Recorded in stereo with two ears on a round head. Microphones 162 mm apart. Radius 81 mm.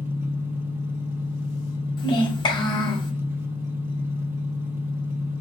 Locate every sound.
0.0 s an engine running: 10° right (ahead or behind), 0.7 m
2.0 s a child speaking: 25° left (ahead or behind), 1.4 m